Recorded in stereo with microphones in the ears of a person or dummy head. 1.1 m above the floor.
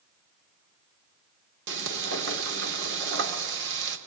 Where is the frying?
70° right (ahead or behind), 2.5 m.